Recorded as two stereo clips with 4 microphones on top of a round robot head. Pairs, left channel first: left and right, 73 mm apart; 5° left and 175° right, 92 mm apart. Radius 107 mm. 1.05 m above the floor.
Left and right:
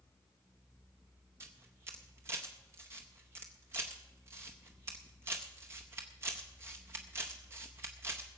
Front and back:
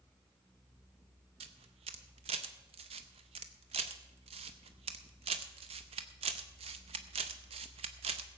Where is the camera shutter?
155° right, 0.6 m.